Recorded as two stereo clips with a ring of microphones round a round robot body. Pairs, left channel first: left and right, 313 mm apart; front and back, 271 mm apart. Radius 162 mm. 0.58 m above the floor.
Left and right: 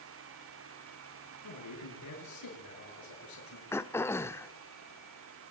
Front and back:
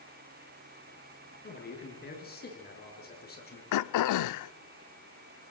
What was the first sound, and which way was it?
A man speaking, 55° left.